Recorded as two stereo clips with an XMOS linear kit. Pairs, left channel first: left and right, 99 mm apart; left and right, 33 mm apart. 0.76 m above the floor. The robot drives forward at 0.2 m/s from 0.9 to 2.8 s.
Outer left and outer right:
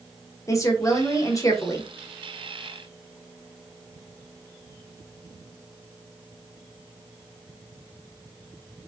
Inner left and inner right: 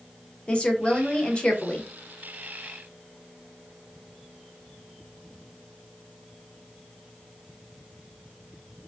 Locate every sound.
0.5 s a woman speaking: 30° left (ahead or behind), 0.6 m; by 1.9 s 35° left (ahead or behind), 0.6 m